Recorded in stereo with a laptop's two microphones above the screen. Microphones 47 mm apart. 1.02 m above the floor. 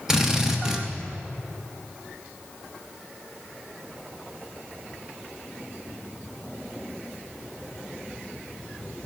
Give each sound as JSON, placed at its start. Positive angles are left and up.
{"t": 0.1, "sound": "a drill", "side_deg": -10, "distance_m": 0.8}